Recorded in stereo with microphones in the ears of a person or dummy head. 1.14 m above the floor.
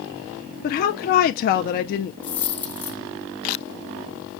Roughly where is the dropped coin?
Centre.